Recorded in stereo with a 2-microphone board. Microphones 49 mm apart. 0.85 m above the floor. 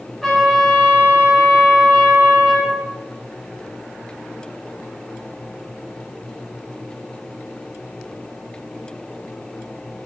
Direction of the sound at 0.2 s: 5° left (ahead or behind).